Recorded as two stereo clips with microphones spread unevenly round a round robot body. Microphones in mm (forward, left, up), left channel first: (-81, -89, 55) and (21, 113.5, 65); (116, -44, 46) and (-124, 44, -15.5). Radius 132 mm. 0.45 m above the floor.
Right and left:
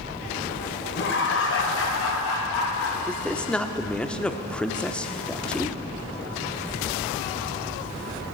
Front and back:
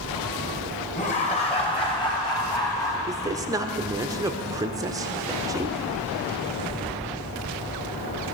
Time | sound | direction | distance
0.9 | laughter | 85° right | 2.5 m
3.1 | a man speaking | 170° left | 1.0 m